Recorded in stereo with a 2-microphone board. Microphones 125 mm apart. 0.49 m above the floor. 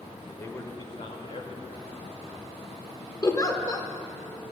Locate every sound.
0.4 s a man speaking: 15° left (ahead or behind), 1.7 m; by 3.1 s 70° left (ahead or behind), 3.5 m
3.2 s a giggle: 30° left (ahead or behind), 1.1 m